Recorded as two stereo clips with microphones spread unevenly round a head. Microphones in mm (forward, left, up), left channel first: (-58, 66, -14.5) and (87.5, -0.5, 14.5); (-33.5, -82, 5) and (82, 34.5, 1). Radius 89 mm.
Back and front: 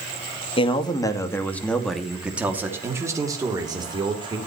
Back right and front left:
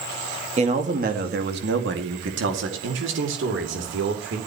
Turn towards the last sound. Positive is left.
turn(degrees=40)